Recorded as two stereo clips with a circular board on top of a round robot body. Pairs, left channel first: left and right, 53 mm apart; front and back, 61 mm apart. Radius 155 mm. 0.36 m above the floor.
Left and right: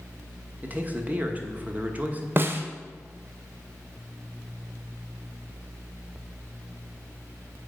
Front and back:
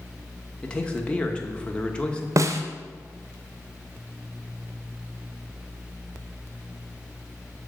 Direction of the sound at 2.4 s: 140° right.